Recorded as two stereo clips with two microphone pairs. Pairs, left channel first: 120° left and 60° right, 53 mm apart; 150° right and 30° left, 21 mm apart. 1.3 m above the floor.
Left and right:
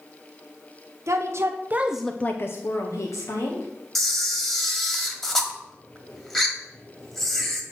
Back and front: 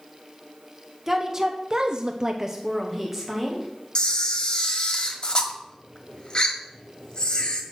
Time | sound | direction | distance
1.1 | a woman speaking | 45° right | 1.1 m
4.0 | a camera shutter | 160° right | 1.3 m